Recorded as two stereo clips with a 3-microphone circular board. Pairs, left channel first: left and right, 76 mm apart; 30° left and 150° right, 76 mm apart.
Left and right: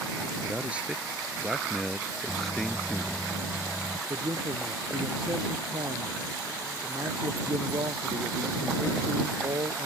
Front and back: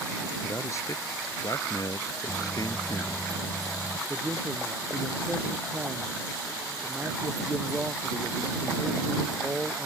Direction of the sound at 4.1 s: 80° right.